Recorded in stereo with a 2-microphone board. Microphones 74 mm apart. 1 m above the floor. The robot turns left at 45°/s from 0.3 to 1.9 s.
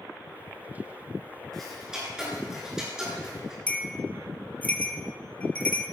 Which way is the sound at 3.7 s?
25° left (ahead or behind).